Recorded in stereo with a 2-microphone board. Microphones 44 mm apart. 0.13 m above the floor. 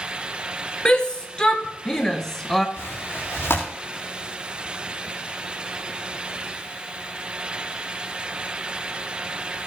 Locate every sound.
0.8 s a shout: 20° left (ahead or behind), 2.0 m; by 2.7 s 10° left (ahead or behind), 1.2 m
2.8 s tearing paper: 80° left, 4 m